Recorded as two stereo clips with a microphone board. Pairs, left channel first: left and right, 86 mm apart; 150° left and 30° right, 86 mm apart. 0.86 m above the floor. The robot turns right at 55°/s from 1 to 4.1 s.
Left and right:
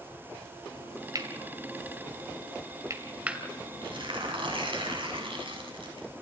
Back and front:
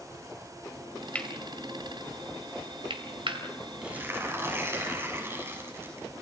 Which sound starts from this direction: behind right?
Cutlery clinking, at 1.1 s.